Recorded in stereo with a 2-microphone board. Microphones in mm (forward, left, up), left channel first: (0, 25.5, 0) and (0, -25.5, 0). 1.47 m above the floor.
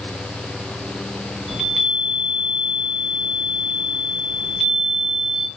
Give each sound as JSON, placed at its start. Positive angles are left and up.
{"t": 1.5, "sound": "a chime", "side_deg": -5, "distance_m": 1.2}